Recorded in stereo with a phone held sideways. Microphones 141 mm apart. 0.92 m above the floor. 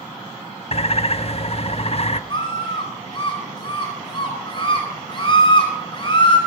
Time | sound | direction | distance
0.7 | a bird | 45° left (ahead or behind) | 0.7 m
2.3 | a scream | 35° left (ahead or behind) | 4.5 m